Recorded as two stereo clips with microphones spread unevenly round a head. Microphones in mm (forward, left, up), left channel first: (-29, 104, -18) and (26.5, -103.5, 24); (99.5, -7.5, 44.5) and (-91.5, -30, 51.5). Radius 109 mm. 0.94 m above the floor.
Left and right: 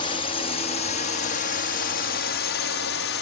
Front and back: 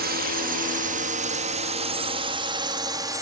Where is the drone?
160° left; by 3.2 s 115° left.